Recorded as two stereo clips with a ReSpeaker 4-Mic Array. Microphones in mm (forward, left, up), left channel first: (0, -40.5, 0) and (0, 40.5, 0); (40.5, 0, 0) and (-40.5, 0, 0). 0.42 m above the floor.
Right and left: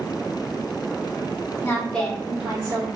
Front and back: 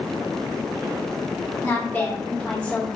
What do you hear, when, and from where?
1.6 s a woman speaking: 50° right, 1.0 m; by 2.9 s 75° left, 1.0 m